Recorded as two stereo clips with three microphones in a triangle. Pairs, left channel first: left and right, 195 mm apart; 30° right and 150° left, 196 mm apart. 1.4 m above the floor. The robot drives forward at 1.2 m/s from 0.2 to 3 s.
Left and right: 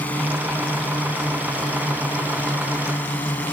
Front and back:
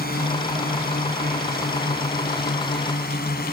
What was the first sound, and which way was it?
A drone, 10° left.